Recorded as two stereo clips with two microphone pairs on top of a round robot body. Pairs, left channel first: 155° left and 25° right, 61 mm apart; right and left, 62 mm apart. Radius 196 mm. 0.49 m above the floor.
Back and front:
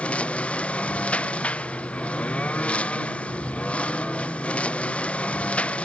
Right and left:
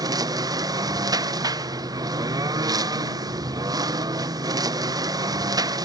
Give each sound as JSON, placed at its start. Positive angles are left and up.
{"t": 0.0, "sound": "a lawn mower", "azimuth_deg": 85}